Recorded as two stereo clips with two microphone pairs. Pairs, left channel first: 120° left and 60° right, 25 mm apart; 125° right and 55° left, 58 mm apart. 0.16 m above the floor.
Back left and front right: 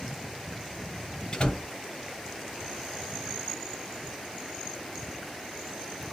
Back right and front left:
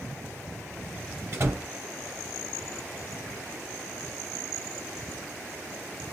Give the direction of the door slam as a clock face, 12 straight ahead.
9 o'clock.